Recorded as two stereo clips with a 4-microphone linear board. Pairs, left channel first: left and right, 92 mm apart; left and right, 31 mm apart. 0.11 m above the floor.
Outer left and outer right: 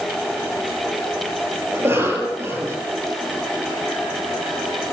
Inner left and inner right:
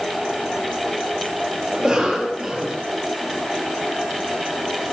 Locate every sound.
1.7 s a cough: 25° right (ahead or behind), 3 m